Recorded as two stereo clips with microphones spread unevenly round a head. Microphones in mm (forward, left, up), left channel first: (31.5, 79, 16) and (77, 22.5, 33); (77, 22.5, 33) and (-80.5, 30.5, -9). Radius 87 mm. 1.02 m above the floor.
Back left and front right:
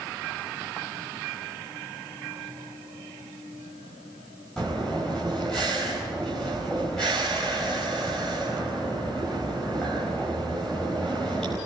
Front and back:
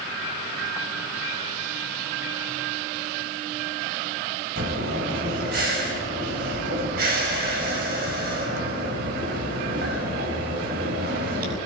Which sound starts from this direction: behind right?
Breathing, at 4.6 s.